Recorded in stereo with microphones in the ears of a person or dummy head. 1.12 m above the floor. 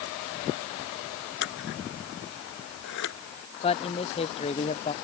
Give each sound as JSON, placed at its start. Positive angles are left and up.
{"t": 1.4, "sound": "scissors", "side_deg": 60}
{"t": 3.6, "sound": "a man speaking", "side_deg": 25}